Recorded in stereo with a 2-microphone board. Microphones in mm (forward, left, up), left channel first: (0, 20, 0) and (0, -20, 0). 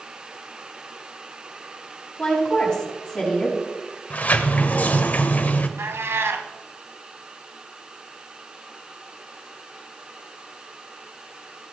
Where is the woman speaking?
15° left (ahead or behind), 6 m.